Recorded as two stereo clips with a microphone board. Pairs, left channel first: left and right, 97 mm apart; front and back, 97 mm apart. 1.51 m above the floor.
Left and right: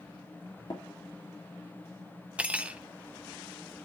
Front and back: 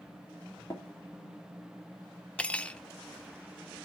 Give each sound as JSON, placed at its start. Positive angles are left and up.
{"t": 0.7, "sound": "tapping", "azimuth_deg": 55, "distance_m": 2.5}
{"t": 2.4, "sound": "cutlery clinking", "azimuth_deg": -50, "distance_m": 0.5}